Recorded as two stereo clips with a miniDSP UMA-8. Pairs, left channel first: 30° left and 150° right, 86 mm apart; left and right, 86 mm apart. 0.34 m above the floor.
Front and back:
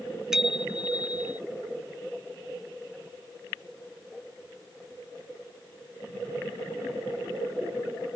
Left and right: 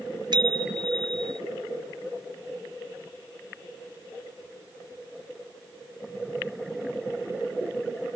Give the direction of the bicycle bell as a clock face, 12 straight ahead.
2 o'clock.